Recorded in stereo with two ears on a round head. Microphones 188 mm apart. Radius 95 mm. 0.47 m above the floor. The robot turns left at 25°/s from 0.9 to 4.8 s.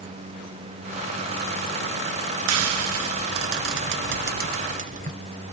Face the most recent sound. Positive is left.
turn(degrees=-35)  # may be behind; listen again after turning